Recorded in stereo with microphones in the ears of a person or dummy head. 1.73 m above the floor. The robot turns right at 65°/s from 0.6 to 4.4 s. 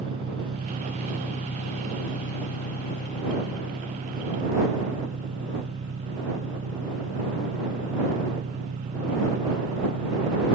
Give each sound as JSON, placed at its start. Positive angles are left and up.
{"t": 0.0, "sound": "an engine running", "azimuth_deg": -25}